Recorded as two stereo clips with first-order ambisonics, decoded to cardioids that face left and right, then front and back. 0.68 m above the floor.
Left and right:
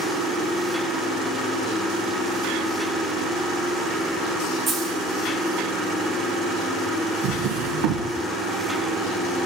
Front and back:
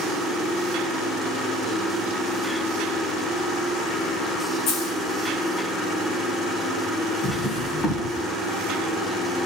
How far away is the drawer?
About 5 m.